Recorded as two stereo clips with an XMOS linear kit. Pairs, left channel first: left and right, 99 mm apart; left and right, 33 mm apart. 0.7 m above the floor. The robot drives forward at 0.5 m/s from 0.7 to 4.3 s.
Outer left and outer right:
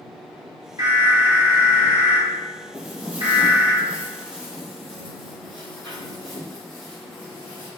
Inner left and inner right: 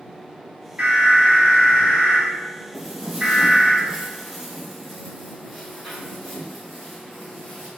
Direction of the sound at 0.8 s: 40° right (ahead or behind).